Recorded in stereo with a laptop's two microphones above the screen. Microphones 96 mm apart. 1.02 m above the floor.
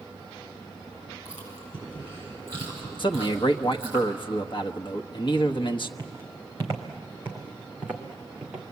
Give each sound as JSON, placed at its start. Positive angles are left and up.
{"t": 1.2, "sound": "chewing", "side_deg": -25, "distance_m": 9.0}
{"t": 3.0, "sound": "a man speaking", "side_deg": 60, "distance_m": 1.1}
{"t": 6.0, "sound": "footsteps", "side_deg": -30, "distance_m": 3.0}